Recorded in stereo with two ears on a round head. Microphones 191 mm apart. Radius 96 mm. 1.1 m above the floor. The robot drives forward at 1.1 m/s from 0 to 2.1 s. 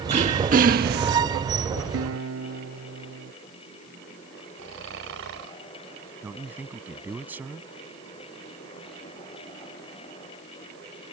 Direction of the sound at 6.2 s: 10° right (ahead or behind).